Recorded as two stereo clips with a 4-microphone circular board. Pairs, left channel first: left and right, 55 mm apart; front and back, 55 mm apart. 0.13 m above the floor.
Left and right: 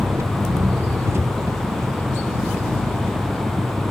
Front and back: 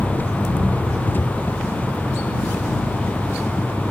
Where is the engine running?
55° right.